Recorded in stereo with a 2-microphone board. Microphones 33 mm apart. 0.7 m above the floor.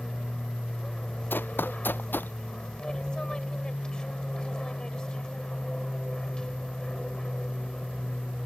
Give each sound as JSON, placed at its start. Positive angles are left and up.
{"t": 0.0, "sound": "an aircraft", "side_deg": 25}
{"t": 1.3, "sound": "running footsteps", "side_deg": 85}